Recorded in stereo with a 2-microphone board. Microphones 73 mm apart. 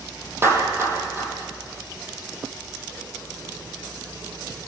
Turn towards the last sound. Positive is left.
turn(degrees=-30)  # may be behind; listen again after turning